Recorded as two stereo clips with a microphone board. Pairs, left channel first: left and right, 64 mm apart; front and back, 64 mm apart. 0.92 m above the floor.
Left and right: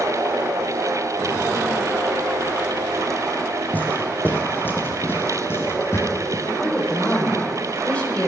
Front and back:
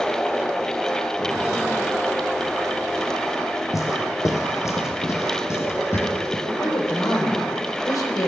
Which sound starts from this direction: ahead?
A woman speaking, at 6.5 s.